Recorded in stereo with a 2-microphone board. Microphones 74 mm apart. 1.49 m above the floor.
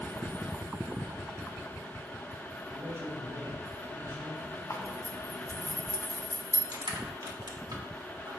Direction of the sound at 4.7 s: 40° left (ahead or behind).